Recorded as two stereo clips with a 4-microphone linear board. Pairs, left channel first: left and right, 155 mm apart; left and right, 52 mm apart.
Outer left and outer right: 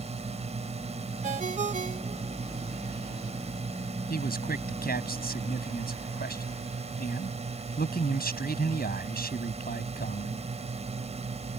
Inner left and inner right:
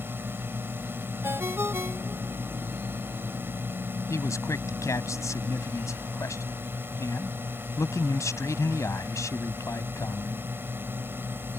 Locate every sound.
0.0 s a drone: 40° right (ahead or behind)
1.2 s a ringtone: 55° right (ahead or behind)
4.1 s a man speaking: 80° left